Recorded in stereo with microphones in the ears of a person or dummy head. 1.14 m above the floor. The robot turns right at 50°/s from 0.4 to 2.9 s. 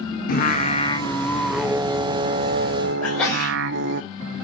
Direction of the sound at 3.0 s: 15° left (ahead or behind).